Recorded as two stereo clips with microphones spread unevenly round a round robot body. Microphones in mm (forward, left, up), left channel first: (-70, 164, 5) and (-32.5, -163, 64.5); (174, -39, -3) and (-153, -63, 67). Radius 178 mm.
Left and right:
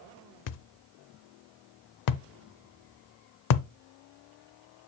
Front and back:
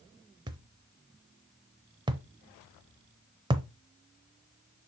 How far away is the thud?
About 0.5 m.